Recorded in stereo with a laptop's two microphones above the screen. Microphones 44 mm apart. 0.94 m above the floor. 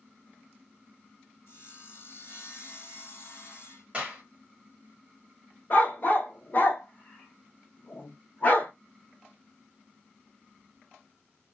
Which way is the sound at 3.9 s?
25° right (ahead or behind).